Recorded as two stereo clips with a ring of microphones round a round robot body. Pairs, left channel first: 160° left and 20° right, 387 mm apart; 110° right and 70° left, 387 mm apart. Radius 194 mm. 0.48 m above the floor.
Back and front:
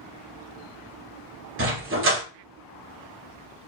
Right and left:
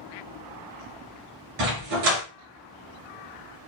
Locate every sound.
1.6 s a dog barking: 35° left, 2 m